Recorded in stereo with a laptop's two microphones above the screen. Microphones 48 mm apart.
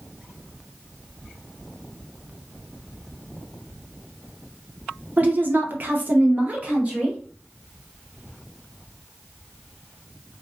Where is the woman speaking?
35° right (ahead or behind), 0.6 m; by 7.2 s 25° right (ahead or behind), 1.1 m.